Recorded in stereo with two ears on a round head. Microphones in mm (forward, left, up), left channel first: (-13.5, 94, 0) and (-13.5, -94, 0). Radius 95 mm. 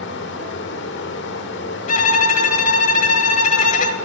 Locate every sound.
0.0 s running water: 60° left (ahead or behind), 1.3 m
1.9 s a violin: 35° left (ahead or behind), 1.1 m